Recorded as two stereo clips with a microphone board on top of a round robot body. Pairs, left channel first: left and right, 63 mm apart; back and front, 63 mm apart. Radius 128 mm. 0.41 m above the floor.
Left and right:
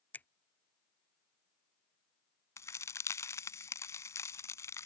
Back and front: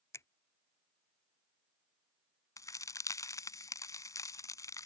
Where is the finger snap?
150° left.